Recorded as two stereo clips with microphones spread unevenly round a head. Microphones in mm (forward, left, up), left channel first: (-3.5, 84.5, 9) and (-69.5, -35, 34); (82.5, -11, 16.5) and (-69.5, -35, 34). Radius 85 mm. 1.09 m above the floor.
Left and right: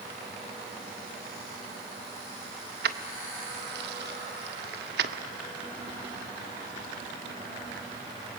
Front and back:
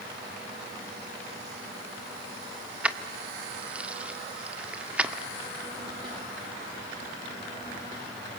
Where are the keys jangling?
90° right, 1.5 m.